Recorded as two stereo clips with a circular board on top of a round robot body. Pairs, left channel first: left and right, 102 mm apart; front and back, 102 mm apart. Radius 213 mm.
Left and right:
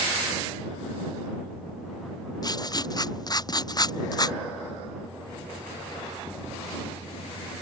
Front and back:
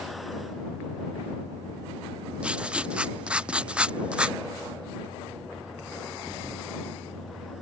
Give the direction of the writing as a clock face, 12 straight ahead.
9 o'clock.